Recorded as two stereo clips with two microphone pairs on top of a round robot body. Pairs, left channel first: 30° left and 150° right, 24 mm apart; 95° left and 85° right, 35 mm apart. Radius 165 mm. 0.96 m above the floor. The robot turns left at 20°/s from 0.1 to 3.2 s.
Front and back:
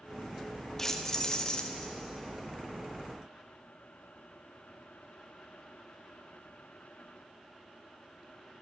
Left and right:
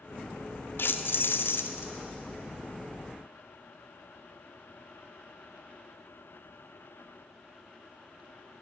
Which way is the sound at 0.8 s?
105° left.